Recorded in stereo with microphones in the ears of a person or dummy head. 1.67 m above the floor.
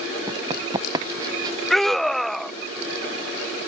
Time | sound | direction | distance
0.3 | running footsteps | 20° right (ahead or behind) | ?
1.7 | a scream | 5° left (ahead or behind) | ?